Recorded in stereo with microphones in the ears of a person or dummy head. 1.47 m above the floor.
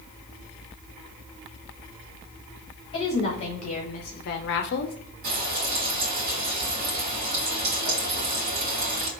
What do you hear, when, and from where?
2.9 s a woman speaking: 35° left (ahead or behind), 1.9 m; by 5.0 s 50° left (ahead or behind), 0.7 m
5.2 s frying: 55° right (ahead or behind), 1.3 m